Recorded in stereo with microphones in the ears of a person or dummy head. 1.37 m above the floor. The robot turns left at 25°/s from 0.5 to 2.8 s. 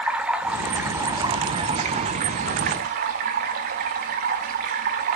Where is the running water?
10° right, 1.5 m; by 5.2 s 65° right, 1.5 m.